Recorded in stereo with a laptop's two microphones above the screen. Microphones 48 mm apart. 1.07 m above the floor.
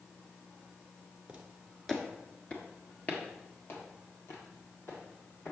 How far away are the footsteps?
About 1.0 m.